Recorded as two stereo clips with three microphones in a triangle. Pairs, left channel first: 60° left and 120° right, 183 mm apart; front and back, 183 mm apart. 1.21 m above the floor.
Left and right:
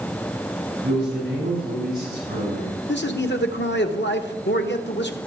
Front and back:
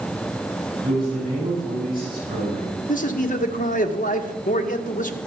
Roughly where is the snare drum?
No snare drum in this recording.